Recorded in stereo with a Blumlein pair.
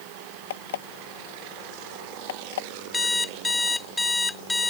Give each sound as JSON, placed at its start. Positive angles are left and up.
{"t": 0.5, "sound": "an alarm clock", "azimuth_deg": 60}
{"t": 2.9, "sound": "an alarm clock", "azimuth_deg": 5}